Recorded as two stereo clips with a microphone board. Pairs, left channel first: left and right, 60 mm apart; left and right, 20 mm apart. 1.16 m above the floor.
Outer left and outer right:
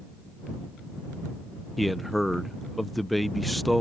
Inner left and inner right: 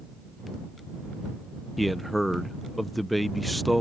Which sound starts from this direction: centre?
A man speaking, at 1.8 s.